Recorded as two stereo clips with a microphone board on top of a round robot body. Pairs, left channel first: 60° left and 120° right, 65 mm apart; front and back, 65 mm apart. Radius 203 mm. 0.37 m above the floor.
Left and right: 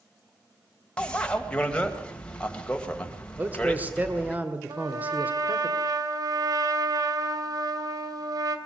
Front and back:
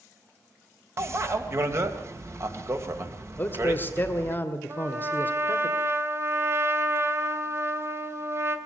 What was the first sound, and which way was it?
A bicycle bell, 135° left.